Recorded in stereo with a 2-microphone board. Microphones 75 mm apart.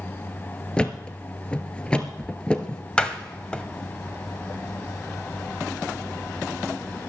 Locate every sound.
0.8 s a thud: 15° left (ahead or behind), 1.4 m
3.0 s a door slam: 15° left (ahead or behind), 1.4 m